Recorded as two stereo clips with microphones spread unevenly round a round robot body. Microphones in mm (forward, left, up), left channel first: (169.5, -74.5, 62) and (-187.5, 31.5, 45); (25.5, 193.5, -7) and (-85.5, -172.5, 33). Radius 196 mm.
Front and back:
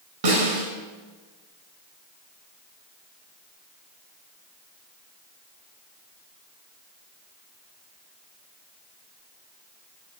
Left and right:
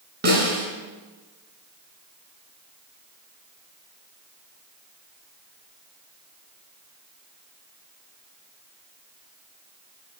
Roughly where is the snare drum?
Behind.